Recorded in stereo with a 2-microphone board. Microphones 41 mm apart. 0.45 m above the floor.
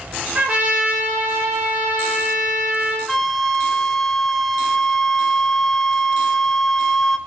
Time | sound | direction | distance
0.3 | a trumpet | 20° right (ahead or behind) | 4 m
3.1 | a flute | 10° left (ahead or behind) | 1.0 m